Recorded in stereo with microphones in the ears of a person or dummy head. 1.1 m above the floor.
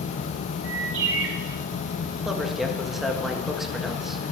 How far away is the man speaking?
About 1.6 m.